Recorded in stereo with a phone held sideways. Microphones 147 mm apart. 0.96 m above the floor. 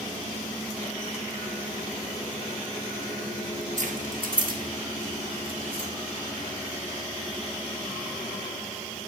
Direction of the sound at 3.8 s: 60° right (ahead or behind).